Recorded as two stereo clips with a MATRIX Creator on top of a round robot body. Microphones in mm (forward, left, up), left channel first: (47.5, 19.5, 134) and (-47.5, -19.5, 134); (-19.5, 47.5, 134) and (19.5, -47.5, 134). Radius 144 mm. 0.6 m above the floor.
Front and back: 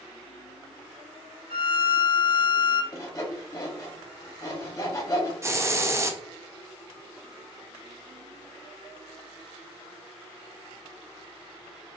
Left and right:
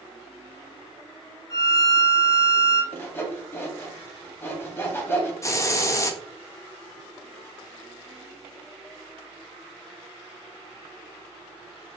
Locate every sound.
1.5 s a violin: 170° left, 0.6 m
2.9 s sawing: 60° left, 1.0 m
5.4 s a hiss: 155° left, 0.6 m